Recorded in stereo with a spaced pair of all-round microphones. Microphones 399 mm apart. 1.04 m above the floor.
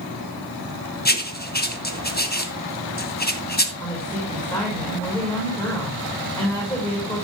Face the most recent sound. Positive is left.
turn(degrees=10)  # may be behind; listen again after turning